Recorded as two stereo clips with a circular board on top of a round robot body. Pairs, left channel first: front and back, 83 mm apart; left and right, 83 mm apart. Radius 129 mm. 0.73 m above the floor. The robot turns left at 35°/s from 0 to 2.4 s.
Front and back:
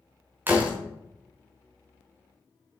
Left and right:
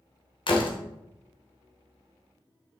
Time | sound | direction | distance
0.5 | a door slam | 115° left | 2 m